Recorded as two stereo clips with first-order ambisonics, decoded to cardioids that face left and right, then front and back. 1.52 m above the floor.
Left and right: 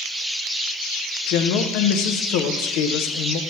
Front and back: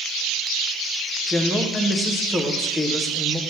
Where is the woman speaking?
95° left, 0.7 m.